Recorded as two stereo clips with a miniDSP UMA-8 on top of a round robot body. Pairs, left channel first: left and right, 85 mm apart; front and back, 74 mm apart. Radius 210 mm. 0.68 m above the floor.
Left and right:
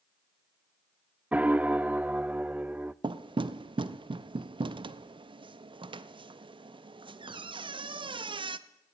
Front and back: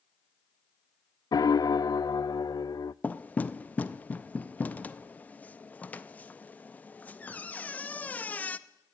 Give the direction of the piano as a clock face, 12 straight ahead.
1 o'clock.